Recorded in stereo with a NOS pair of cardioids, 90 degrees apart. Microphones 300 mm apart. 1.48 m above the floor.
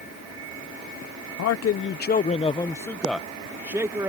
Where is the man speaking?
60° left; by 4.1 s 10° right.